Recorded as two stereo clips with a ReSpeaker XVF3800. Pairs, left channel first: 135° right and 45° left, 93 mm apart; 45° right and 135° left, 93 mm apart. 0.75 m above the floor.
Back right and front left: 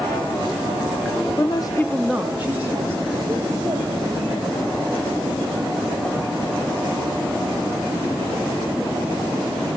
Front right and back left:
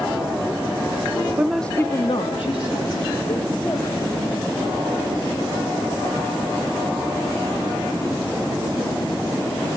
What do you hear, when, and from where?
1.4 s a woman speaking: 155° right, 0.7 m; by 4.5 s 15° right, 3.5 m